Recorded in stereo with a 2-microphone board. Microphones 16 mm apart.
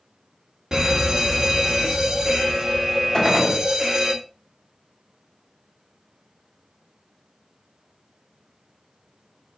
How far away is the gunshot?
About 1.9 m.